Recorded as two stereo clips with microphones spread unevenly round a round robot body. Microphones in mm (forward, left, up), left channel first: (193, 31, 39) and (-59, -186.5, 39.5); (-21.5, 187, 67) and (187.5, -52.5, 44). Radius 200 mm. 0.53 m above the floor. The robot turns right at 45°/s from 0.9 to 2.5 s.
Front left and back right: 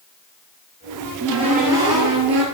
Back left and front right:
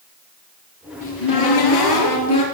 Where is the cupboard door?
125° left, 3.5 m; by 2.4 s 170° right, 3.5 m.